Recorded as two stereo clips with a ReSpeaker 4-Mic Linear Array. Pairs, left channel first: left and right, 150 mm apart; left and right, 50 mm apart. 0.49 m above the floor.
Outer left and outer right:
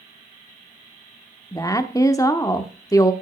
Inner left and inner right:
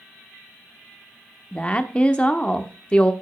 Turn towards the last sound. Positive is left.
turn(degrees=20)  # may be behind; listen again after turning